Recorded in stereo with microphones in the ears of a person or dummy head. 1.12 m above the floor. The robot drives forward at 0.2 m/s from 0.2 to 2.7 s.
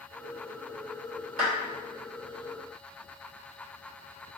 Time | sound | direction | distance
1.4 | a clap | 45° right (ahead or behind) | 1.9 m